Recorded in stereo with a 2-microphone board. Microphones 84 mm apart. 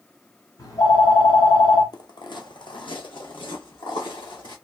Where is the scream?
No scream in this recording.